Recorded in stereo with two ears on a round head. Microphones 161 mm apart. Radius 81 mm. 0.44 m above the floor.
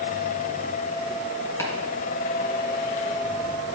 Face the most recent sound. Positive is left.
turn(degrees=15)  # may be behind; listen again after turning